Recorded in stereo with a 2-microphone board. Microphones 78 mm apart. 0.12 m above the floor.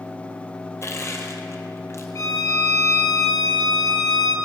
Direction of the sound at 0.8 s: 35° left (ahead or behind).